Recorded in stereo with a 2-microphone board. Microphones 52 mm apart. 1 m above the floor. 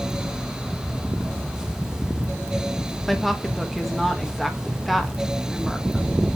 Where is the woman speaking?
Centre (ahead or behind), 1.3 m.